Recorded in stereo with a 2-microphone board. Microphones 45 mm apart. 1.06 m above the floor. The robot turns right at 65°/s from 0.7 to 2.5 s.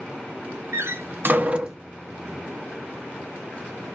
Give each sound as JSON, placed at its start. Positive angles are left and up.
{"t": 0.7, "sound": "a door slam", "side_deg": -80, "distance_m": 0.7}